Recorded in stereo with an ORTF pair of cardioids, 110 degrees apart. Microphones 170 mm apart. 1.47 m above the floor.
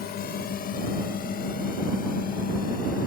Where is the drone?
65° left; by 3.1 s 55° left.